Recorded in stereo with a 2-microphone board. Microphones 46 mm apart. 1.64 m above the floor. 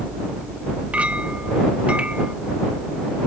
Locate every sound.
0.9 s a clink: 30° right (ahead or behind)